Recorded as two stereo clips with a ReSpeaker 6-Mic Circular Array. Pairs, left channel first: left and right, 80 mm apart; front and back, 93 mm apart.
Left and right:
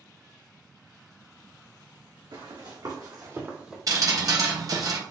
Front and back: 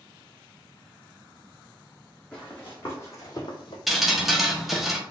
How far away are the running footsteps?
About 2.5 m.